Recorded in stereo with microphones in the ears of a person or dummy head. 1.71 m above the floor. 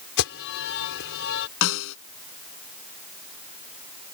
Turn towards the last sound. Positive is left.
turn(degrees=75)  # may be behind; listen again after turning